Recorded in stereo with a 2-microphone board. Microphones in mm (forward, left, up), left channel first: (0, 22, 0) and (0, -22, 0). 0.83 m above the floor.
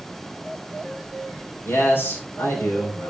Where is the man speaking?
65° left (ahead or behind), 3 m.